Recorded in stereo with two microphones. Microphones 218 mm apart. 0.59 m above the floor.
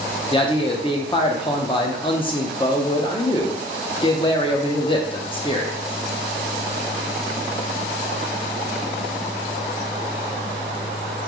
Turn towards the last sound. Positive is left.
turn(degrees=25)  # may be behind; listen again after turning